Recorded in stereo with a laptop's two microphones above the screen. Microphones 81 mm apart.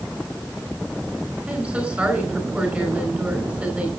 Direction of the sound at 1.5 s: 15° right (ahead or behind).